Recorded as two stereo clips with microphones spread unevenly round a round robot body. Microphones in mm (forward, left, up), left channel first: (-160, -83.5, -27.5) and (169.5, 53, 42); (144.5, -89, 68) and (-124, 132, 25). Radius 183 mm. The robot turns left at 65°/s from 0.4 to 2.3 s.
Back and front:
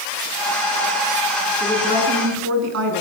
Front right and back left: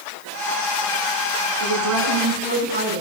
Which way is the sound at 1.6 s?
120° left.